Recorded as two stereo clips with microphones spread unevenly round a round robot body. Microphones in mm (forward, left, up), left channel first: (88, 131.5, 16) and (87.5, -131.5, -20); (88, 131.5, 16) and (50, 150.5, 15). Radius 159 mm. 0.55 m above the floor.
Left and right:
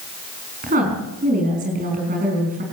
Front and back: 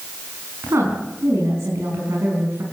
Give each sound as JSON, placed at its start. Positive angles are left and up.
{"t": 0.6, "sound": "a woman speaking", "azimuth_deg": -155, "distance_m": 4.5}